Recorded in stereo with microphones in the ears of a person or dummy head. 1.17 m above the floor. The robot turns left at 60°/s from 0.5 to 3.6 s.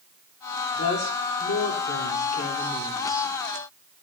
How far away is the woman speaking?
About 3.5 m.